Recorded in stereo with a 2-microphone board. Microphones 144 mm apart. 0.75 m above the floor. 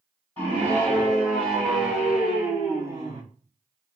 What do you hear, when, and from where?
0.4 s a scream: 15° left (ahead or behind), 2.5 m; by 3.2 s 30° right (ahead or behind), 1.3 m